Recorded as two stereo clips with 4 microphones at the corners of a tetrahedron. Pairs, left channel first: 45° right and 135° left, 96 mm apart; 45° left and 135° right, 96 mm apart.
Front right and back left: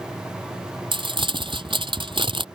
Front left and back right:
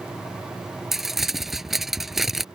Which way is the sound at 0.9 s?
135° left.